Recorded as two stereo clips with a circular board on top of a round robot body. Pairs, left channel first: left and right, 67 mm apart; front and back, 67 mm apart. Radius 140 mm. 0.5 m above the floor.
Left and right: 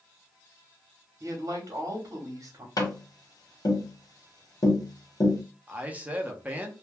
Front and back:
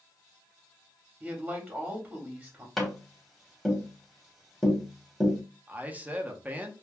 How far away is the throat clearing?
I don't hear throat clearing.